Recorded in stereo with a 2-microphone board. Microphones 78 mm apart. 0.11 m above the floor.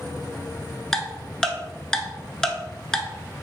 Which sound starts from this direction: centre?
Ticking, at 0.9 s.